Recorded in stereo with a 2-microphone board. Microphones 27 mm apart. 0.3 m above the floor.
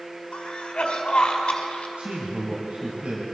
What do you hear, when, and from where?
0.3 s a cough: 40° left (ahead or behind), 2.5 m
2.0 s a man speaking: 55° right (ahead or behind), 2 m